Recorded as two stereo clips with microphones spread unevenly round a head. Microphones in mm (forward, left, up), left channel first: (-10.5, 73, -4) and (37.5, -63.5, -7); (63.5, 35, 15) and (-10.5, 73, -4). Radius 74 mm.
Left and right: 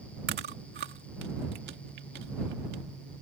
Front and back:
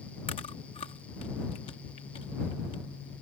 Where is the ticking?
I don't hear ticking.